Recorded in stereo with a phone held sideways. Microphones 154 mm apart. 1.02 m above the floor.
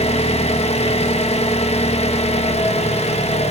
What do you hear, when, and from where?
0.0 s an engine running: 45° left (ahead or behind), 1.2 m